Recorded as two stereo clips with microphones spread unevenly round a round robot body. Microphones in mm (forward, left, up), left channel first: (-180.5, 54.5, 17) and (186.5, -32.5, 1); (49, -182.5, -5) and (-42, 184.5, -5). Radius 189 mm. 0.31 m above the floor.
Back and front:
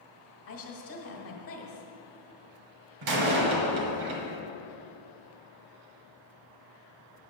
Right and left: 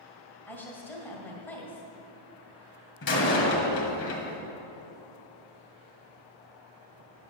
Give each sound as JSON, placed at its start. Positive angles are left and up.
{"t": 0.5, "sound": "a woman speaking", "azimuth_deg": -160, "distance_m": 1.8}
{"t": 3.0, "sound": "a door slam", "azimuth_deg": -20, "distance_m": 1.6}